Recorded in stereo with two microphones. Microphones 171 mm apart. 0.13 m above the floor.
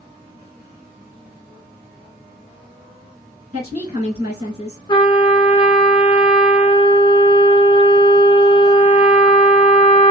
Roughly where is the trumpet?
Left.